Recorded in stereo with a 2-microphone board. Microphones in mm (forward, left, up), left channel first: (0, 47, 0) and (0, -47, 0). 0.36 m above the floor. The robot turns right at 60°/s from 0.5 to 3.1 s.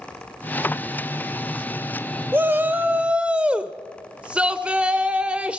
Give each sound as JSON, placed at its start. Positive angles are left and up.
{"t": 2.3, "sound": "a shout", "side_deg": -20, "distance_m": 1.0}